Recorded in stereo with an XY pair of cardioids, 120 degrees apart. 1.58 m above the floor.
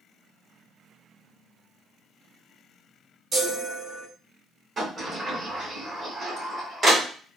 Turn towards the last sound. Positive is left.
turn(degrees=-25)